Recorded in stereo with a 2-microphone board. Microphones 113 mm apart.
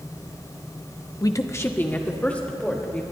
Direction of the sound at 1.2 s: 35° left (ahead or behind).